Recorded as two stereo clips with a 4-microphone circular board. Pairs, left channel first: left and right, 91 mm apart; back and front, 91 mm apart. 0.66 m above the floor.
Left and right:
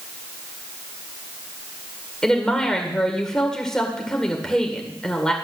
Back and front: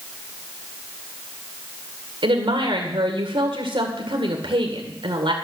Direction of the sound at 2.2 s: 5° left.